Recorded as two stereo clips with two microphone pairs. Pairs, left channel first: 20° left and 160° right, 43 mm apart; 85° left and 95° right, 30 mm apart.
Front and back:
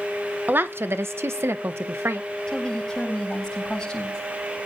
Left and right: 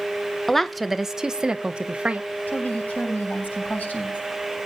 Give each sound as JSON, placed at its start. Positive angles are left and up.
{"t": 0.5, "sound": "a woman speaking", "azimuth_deg": 165, "distance_m": 0.8}
{"t": 2.5, "sound": "a woman speaking", "azimuth_deg": 95, "distance_m": 8.5}